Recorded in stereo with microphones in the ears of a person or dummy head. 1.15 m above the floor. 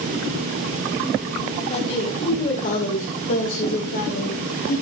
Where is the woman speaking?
35° left (ahead or behind), 2.5 m; by 4.8 s 55° left (ahead or behind), 4.5 m.